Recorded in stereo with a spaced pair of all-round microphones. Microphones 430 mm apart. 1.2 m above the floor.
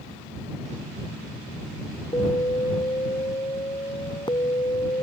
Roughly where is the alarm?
Centre.